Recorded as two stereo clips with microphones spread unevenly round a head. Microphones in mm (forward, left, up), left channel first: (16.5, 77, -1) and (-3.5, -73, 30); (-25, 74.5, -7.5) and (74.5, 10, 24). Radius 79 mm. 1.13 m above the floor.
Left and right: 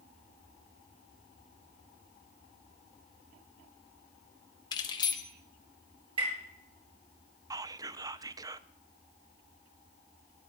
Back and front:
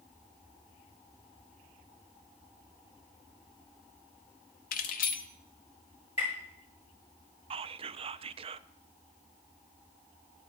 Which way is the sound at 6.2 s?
155° right.